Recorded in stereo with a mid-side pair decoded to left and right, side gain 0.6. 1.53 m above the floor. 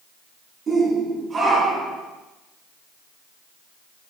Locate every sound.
0.7 s a shout: 30° right, 5 m; by 2.0 s 25° right, 4 m